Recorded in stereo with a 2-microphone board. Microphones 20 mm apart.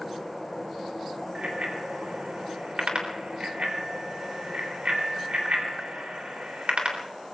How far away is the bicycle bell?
About 3.5 m.